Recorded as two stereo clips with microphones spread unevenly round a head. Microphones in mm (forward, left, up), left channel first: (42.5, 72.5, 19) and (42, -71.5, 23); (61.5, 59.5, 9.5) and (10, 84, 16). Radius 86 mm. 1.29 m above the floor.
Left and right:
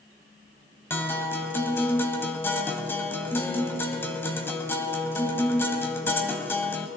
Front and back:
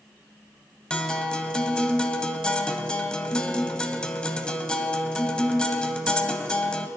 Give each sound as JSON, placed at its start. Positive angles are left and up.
{"t": 0.9, "sound": "a guitar", "azimuth_deg": 40, "distance_m": 1.1}